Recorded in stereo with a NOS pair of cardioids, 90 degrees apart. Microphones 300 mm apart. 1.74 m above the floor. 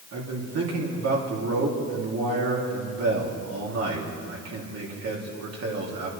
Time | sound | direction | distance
0.1 | a man speaking | 50° right | 3.5 m